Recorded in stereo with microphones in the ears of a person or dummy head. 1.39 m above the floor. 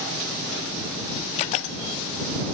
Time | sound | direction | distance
1.4 | a camera shutter | 40° left (ahead or behind) | ?